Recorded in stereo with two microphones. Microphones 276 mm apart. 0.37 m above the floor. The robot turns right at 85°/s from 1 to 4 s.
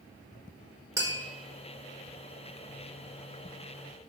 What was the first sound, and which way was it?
Tapping, 10° right (ahead or behind).